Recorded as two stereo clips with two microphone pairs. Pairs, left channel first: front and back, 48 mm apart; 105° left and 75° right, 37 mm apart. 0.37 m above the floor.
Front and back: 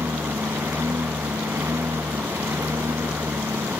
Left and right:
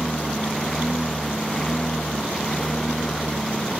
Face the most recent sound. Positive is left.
turn(degrees=-175)